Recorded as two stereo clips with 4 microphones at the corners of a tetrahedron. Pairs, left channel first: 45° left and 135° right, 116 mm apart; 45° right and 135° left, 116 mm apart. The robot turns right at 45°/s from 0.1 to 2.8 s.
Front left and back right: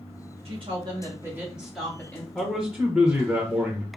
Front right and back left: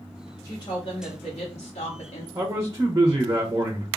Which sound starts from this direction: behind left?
A man speaking, at 2.4 s.